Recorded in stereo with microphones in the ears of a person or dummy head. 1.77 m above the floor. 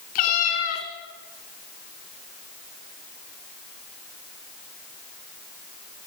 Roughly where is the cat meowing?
Left.